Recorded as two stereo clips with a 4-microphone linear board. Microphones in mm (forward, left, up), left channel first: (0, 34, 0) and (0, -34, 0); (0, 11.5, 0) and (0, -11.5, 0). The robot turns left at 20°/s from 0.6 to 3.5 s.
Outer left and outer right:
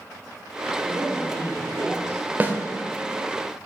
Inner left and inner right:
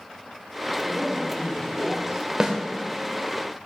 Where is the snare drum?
25° right (ahead or behind), 0.8 m.